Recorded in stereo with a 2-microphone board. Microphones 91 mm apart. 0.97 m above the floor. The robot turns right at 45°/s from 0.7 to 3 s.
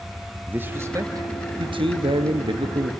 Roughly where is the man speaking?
Behind right.